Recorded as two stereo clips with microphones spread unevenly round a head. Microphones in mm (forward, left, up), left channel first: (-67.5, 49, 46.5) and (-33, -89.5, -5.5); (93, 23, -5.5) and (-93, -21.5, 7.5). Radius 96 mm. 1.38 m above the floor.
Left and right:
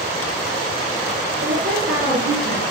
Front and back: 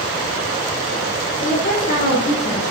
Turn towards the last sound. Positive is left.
turn(degrees=-55)